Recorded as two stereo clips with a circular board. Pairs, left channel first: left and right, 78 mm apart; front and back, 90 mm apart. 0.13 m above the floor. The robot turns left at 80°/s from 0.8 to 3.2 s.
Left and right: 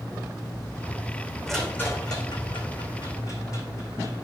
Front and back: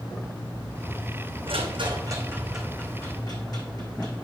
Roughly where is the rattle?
Behind.